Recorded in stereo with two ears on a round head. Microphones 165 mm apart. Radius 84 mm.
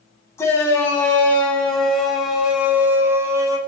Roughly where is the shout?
Centre.